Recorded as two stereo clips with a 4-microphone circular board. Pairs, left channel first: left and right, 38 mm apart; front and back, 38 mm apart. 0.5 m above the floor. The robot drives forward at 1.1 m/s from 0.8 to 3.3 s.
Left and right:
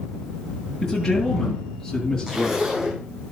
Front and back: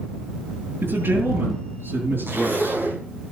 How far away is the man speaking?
About 7 m.